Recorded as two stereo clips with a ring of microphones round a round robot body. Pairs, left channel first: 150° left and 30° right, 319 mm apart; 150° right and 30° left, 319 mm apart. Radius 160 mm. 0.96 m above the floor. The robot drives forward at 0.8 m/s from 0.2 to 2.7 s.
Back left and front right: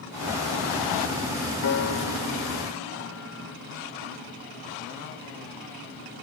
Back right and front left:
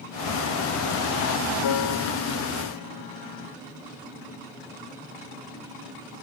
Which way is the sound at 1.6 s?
165° right.